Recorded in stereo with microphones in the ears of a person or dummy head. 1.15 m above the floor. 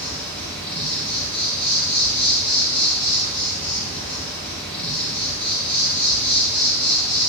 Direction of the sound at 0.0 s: 10° left (ahead or behind).